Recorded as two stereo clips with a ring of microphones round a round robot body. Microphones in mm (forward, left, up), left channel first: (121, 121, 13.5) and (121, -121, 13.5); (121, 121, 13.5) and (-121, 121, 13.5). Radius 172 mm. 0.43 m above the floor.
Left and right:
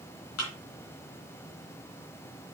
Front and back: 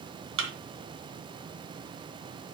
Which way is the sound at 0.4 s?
140° left.